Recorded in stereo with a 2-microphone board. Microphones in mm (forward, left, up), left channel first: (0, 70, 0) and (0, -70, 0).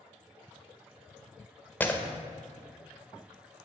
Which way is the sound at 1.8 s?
10° left (ahead or behind).